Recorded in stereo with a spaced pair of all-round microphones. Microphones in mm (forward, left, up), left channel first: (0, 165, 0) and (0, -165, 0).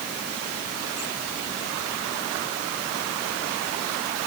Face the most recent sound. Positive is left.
No sound to turn to.